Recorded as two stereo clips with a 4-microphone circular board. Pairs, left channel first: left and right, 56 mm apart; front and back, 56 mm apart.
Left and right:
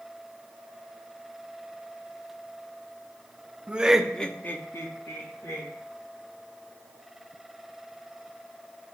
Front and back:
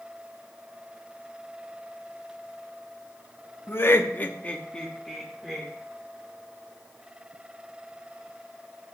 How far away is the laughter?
About 0.7 m.